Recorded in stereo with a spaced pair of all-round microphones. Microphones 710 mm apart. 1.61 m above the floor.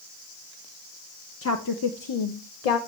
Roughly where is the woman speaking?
Centre.